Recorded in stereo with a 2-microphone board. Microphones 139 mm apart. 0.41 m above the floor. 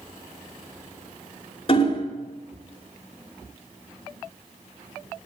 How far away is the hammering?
About 1.4 m.